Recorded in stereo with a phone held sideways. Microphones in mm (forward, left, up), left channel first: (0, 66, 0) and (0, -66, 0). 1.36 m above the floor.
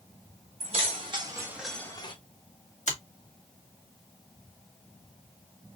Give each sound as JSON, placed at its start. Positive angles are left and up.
{"t": 0.6, "sound": "keys jangling", "side_deg": -50, "distance_m": 1.9}
{"t": 2.9, "sound": "a finger snap", "side_deg": 60, "distance_m": 1.5}